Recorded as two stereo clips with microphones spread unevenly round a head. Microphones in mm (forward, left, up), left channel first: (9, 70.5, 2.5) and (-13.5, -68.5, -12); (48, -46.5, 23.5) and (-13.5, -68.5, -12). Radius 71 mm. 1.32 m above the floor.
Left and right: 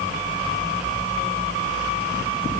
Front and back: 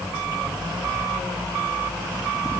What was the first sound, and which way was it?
Only background noise.